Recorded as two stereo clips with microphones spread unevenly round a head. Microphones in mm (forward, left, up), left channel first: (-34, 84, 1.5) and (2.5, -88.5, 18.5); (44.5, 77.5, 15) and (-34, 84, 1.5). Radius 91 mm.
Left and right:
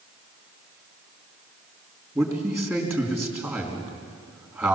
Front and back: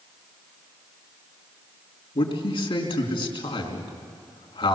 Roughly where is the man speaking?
Ahead.